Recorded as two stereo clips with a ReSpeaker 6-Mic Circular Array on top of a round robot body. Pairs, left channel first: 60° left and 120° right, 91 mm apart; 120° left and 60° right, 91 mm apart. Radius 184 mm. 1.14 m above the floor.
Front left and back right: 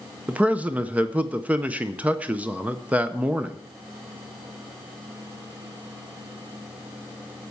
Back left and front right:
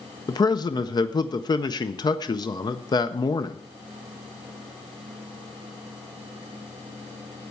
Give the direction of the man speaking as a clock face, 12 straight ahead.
6 o'clock.